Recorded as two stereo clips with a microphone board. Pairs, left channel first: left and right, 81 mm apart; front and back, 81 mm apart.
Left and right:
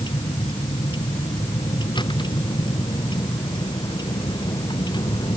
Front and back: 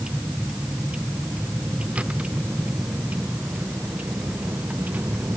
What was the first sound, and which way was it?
A vehicle, 105° left.